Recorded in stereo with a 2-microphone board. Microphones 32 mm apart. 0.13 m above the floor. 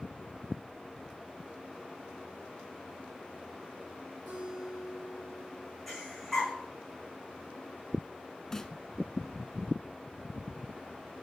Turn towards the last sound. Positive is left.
turn(degrees=15)  # may be behind; listen again after turning